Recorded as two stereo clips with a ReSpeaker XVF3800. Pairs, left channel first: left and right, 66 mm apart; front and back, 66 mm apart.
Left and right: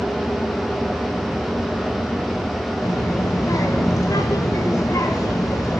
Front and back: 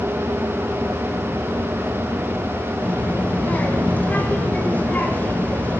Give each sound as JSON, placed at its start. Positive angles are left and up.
{"t": 2.8, "sound": "a child speaking", "azimuth_deg": 65, "distance_m": 1.6}